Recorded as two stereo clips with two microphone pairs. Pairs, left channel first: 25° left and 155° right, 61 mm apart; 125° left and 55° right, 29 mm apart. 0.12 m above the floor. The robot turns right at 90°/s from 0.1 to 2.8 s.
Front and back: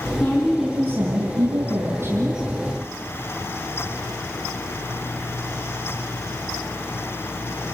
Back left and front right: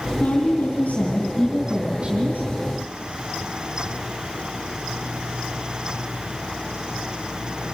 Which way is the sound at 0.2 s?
85° left.